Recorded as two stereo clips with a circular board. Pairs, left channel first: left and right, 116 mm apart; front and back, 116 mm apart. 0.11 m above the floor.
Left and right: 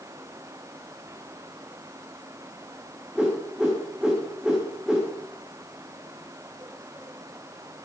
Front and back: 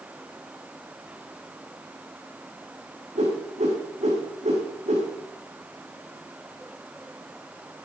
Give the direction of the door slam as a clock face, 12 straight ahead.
I don't hear a door slam.